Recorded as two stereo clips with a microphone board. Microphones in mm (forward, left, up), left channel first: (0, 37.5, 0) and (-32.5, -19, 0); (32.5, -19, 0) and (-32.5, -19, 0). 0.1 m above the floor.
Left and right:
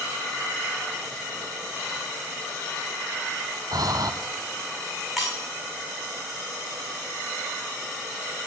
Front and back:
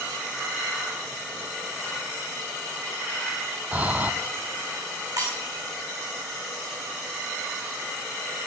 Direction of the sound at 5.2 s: 155° left.